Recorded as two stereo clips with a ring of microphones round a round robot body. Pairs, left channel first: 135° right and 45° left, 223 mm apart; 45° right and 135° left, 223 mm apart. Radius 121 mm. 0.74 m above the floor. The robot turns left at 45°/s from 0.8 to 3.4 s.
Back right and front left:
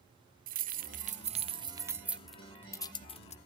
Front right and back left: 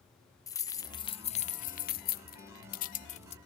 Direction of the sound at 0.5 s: 25° left.